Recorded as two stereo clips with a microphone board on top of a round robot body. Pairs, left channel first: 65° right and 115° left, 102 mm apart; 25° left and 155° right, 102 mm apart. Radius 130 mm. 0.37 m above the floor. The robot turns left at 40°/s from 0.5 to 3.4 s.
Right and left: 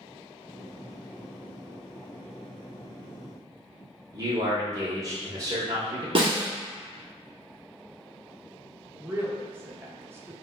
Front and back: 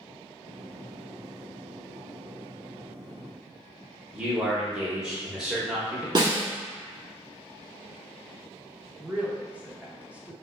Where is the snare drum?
155° left, 0.8 m.